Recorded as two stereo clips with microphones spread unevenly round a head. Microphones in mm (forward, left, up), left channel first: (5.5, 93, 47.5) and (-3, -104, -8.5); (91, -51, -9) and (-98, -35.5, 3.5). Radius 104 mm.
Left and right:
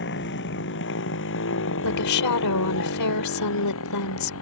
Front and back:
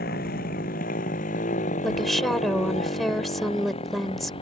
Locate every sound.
0.0 s a motorcycle: 50° left; by 4.4 s 65° left
1.8 s a woman speaking: 85° left